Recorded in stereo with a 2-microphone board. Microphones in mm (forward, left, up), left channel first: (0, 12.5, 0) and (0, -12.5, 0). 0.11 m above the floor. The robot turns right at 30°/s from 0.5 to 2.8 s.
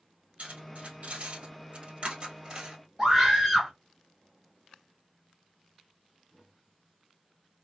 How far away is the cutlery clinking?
About 1.8 m.